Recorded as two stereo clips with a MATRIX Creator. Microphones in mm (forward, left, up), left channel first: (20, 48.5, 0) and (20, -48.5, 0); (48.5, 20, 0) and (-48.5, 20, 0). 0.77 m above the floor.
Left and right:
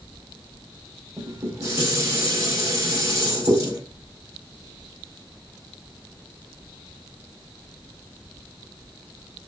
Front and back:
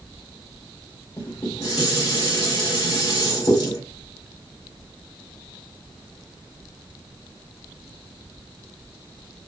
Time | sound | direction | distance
1.2 | dishes clattering | 40° right | 1.9 m